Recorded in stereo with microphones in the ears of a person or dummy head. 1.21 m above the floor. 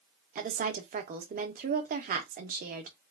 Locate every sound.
0.3 s a woman speaking: 45° right (ahead or behind), 0.7 m